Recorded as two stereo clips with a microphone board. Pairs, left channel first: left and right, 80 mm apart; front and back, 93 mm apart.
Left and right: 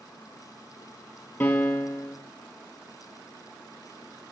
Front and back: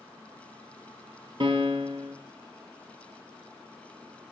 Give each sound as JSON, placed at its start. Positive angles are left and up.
{"t": 1.4, "sound": "a piano", "azimuth_deg": 155, "distance_m": 0.9}